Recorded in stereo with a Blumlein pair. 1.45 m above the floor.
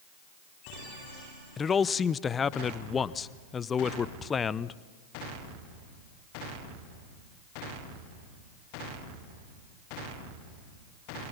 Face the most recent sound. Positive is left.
turn(degrees=20)